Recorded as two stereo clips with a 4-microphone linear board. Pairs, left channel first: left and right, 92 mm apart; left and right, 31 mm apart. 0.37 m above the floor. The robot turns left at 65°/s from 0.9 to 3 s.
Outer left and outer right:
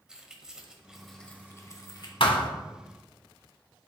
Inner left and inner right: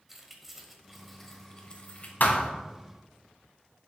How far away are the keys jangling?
About 1.1 m.